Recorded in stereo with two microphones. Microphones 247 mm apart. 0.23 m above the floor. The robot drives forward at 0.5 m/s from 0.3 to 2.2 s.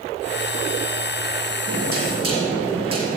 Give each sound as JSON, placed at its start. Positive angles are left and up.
{"t": 1.7, "sound": "knocking", "side_deg": -55, "distance_m": 4.5}